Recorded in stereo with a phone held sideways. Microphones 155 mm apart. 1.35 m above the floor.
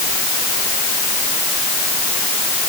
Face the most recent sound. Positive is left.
No sound to turn to.